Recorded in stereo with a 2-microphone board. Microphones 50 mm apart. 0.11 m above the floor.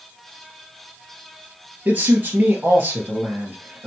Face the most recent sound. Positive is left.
turn(degrees=-40)  # may be behind; listen again after turning